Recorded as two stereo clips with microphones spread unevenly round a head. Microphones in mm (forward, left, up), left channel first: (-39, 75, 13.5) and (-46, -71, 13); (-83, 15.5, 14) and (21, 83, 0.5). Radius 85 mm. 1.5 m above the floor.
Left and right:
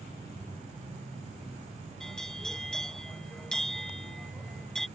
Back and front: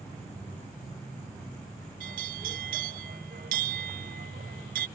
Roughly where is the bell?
Ahead.